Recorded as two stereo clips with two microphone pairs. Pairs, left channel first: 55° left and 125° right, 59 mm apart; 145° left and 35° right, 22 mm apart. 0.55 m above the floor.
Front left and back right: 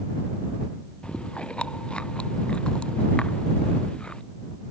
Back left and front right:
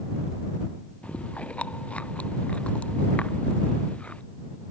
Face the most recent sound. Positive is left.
turn(degrees=130)